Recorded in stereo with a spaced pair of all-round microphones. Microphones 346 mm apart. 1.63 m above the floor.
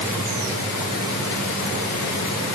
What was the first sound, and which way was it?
Only background noise.